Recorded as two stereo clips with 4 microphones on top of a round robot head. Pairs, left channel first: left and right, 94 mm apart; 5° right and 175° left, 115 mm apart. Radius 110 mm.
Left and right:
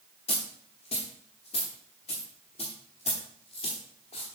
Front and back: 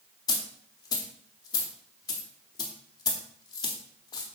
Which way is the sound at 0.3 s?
45° left.